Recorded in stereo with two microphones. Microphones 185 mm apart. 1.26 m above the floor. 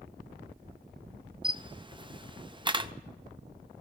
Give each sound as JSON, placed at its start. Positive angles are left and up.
{"t": 1.4, "sound": "a camera shutter", "side_deg": -25, "distance_m": 0.5}